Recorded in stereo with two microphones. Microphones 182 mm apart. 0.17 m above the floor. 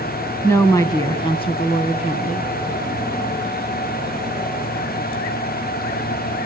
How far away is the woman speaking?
About 1.7 m.